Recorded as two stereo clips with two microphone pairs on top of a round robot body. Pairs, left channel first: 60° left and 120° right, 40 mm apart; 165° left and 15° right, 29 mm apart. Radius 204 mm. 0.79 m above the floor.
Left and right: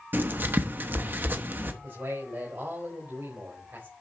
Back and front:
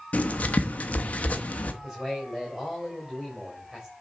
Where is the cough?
No cough in this recording.